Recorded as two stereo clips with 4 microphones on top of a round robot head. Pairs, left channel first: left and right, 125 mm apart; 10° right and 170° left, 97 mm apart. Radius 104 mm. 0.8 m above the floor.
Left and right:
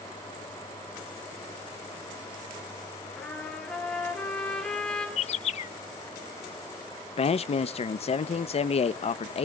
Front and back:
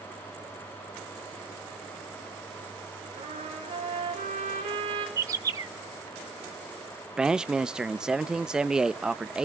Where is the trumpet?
175° left, 5.5 m.